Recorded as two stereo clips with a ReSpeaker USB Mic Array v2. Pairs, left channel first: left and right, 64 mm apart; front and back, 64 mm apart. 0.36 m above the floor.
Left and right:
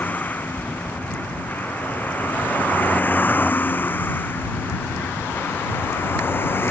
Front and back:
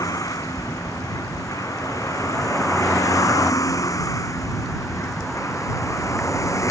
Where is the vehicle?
25° left; by 6.7 s 35° left.